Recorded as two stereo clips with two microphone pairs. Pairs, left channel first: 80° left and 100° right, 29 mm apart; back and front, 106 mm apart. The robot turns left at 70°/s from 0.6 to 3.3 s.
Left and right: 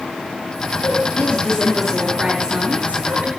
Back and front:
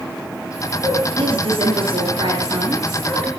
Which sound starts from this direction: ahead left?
A woman speaking, at 0.8 s.